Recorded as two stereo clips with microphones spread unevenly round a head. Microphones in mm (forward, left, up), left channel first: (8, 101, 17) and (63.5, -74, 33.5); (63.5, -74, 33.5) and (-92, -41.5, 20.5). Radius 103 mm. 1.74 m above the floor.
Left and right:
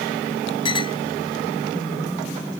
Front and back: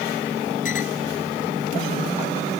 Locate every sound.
0.7 s a clink: 45° left